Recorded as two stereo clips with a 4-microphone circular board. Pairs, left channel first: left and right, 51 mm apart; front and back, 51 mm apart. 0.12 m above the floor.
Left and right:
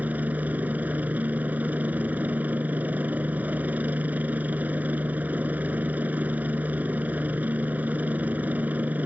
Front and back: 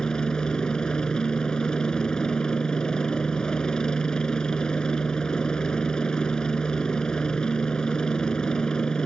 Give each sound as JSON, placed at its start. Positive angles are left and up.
{"t": 0.0, "sound": "a helicopter", "azimuth_deg": -65}